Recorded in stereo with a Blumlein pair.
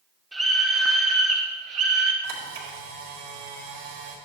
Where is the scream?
10° right, 2.5 m; by 2.1 s 40° right, 2.5 m.